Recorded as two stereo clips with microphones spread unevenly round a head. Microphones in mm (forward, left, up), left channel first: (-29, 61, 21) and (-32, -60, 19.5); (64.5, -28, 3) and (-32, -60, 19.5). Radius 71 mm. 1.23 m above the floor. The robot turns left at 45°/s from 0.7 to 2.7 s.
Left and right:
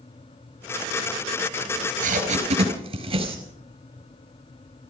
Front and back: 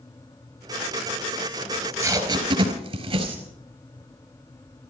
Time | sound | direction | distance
1.7 | tape being pulled | 90° right | 4.5 m